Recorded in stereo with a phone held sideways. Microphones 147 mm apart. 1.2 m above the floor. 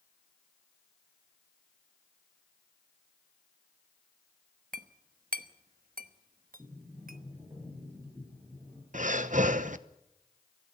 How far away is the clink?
About 1.0 m.